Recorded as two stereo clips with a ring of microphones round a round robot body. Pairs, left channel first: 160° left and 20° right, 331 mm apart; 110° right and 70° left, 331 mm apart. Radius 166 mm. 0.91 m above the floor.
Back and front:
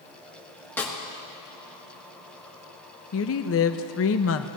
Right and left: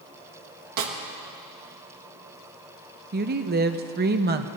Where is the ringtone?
No ringtone in this recording.